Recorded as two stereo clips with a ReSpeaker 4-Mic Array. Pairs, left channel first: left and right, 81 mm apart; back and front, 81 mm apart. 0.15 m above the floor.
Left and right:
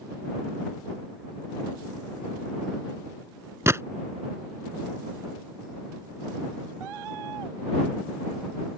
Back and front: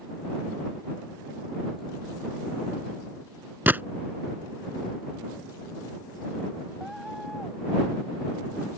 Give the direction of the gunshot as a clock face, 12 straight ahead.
2 o'clock.